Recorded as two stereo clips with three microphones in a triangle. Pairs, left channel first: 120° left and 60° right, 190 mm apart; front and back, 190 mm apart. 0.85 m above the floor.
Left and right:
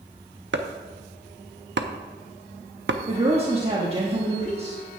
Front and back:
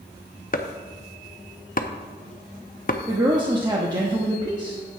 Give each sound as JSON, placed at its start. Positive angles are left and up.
{"t": 0.5, "sound": "chopping", "azimuth_deg": -45, "distance_m": 0.7}
{"t": 3.1, "sound": "a woman speaking", "azimuth_deg": -115, "distance_m": 1.1}